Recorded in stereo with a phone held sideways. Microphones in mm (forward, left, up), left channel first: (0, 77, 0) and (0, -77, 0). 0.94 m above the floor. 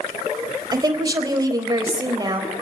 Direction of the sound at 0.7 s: 25° right (ahead or behind).